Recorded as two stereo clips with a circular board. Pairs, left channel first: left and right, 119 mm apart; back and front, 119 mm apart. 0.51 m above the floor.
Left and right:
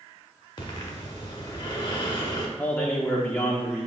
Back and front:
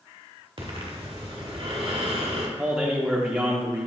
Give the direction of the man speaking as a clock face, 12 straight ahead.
10 o'clock.